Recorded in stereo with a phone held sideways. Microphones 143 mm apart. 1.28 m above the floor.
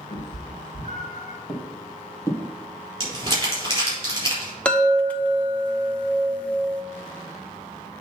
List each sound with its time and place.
0.1 s a cat meowing: 55° left (ahead or behind), 2 m; by 1.4 s 65° left (ahead or behind), 2.5 m
1.5 s footsteps: 35° left (ahead or behind), 3 m; by 2.5 s 15° left (ahead or behind), 1.8 m
3.0 s crumpling: 30° right (ahead or behind), 4 m
4.7 s a chime: 10° left (ahead or behind), 0.7 m